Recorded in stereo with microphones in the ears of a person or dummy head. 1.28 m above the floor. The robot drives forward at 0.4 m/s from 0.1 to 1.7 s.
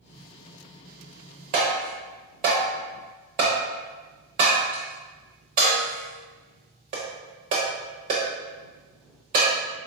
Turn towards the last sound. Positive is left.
turn(degrees=-25)  # may be behind; listen again after turning